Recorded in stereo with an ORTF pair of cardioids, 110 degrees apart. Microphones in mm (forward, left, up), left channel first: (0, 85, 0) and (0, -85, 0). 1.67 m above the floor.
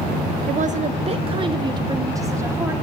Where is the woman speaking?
55° right, 1.1 m; by 2.7 s 15° right, 2 m.